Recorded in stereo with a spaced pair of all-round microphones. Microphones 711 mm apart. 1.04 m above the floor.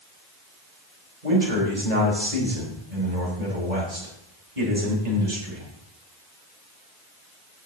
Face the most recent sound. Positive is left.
turn(degrees=-70)  # may be behind; listen again after turning